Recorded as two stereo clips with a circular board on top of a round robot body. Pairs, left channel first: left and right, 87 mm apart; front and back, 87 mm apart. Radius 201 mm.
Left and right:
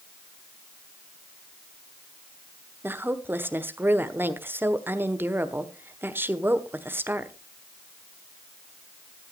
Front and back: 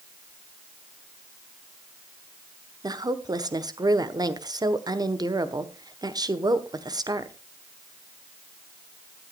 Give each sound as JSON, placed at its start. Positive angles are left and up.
{"t": 2.8, "sound": "a woman speaking", "azimuth_deg": -150, "distance_m": 1.5}